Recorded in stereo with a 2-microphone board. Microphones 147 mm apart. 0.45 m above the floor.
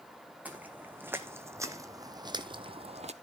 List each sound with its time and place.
0.5 s footsteps: 10° right (ahead or behind), 2 m; by 3.1 s 50° right (ahead or behind), 0.9 m